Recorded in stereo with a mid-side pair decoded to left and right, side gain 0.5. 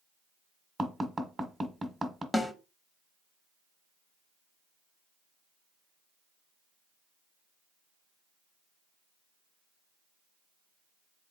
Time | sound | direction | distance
0.8 | tapping | 20° right | 1.3 m
2.3 | a snare drum | 15° left | 1.2 m